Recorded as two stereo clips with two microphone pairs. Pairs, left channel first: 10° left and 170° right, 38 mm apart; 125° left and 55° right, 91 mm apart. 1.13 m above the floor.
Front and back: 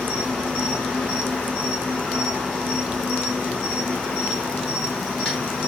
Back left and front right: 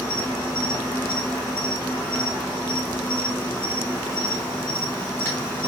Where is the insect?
60° left, 1.5 m.